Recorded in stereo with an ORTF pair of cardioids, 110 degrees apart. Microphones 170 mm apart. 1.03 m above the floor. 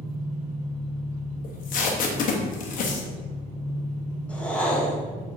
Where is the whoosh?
10° left, 0.8 m.